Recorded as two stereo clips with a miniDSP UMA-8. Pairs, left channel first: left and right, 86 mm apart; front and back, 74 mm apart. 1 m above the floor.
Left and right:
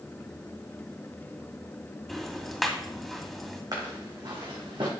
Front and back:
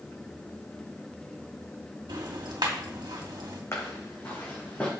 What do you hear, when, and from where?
2.1 s ticking: straight behind, 2 m
3.7 s footsteps: 50° right, 3.5 m; by 4.9 s 70° right, 3.5 m